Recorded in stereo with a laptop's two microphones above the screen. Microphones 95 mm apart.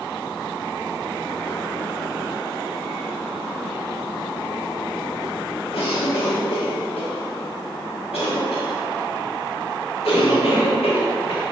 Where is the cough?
85° left, 1.8 m.